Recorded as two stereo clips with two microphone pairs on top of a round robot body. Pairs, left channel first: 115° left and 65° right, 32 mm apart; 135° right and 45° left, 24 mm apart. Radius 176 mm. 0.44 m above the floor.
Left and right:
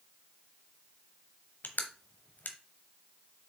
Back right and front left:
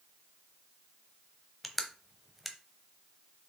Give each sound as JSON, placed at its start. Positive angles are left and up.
{"t": 1.6, "sound": "crushing", "azimuth_deg": 135, "distance_m": 1.0}